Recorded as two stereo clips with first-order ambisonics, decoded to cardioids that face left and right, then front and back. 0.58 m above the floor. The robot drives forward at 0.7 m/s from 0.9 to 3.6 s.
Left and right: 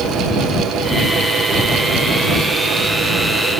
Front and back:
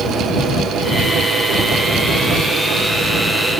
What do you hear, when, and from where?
Only background noise.